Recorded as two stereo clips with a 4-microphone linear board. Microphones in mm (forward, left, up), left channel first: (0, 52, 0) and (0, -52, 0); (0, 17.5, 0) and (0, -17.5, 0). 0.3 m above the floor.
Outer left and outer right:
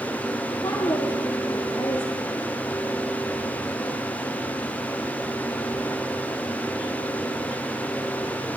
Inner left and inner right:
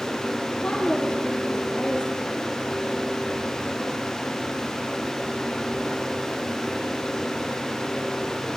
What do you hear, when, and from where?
0.5 s a woman speaking: 40° left (ahead or behind), 9.5 m; by 2.4 s 35° left (ahead or behind), 12 m